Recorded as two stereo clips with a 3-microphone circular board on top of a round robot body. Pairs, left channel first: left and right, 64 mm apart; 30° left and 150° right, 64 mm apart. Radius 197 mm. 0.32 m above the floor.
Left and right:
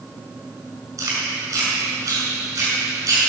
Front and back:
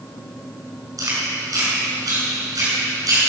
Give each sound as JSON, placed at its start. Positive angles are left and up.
{"t": 1.0, "sound": "chewing", "azimuth_deg": -125, "distance_m": 6.0}